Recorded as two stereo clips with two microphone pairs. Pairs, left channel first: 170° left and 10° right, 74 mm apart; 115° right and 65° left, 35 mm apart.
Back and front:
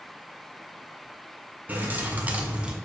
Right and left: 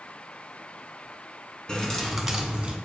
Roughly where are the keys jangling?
Ahead right.